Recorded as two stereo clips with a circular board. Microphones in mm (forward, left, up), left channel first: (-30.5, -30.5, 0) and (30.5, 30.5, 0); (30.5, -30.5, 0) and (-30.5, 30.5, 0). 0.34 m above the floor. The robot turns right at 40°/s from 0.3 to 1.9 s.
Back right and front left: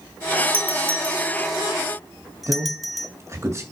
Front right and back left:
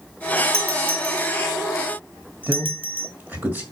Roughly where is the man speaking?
Left.